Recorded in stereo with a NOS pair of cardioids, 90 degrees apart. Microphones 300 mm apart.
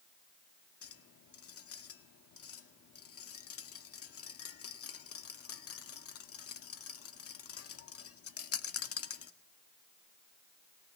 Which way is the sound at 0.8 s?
50° left.